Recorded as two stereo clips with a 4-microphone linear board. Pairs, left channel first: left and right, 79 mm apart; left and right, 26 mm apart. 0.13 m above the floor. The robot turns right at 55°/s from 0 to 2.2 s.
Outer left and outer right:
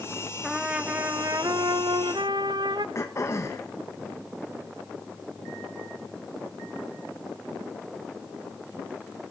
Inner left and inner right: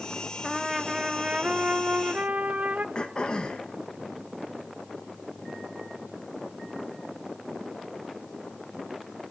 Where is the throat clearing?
40° left (ahead or behind), 1.9 m.